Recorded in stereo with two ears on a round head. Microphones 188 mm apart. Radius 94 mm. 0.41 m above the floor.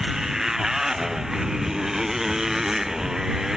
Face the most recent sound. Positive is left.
turn(degrees=0)  # may be behind; listen again after turning